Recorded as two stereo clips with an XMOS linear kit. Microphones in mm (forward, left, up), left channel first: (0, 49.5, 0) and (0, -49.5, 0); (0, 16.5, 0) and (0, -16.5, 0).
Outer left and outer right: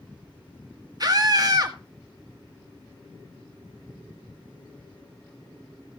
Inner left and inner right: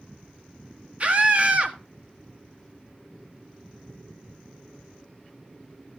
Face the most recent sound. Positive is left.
turn(degrees=-40)  # may be behind; listen again after turning